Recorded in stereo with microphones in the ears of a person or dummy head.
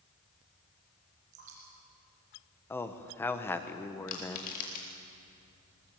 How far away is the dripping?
About 8 m.